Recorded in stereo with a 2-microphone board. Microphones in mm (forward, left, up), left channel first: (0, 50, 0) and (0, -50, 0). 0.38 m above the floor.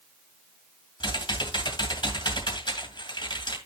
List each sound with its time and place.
1.0 s typing on a keyboard: 50° left (ahead or behind), 2.5 m